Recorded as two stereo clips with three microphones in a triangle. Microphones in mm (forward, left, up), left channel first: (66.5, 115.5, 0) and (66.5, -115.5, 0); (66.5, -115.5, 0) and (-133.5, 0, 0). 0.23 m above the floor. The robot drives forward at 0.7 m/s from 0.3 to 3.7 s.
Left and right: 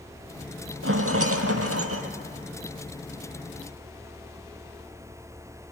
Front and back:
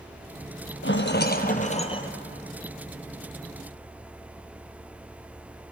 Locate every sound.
0.8 s a rattle: 65° right, 1.5 m; by 2.1 s 100° right, 1.4 m